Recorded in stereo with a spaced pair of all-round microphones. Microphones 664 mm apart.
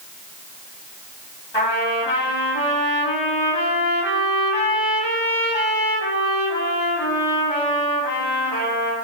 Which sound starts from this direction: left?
A trumpet, at 1.5 s.